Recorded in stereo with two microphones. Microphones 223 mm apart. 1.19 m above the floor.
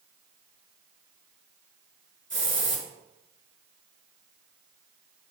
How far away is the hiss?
About 4.5 m.